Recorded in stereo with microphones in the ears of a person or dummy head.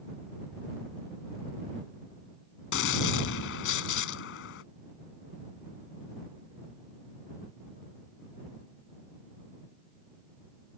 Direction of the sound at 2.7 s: 70° left (ahead or behind).